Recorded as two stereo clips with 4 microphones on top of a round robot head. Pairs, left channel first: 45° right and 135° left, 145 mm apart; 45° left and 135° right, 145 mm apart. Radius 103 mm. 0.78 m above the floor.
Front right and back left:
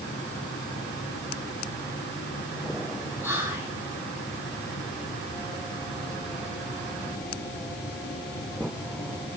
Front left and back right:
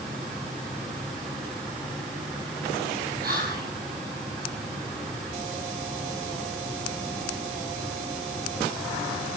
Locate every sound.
3.2 s whispering: 145° right, 5 m